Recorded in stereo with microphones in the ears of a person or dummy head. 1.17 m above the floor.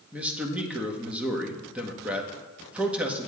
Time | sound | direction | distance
0.1 | a man speaking | 5° right (ahead or behind) | 1.3 m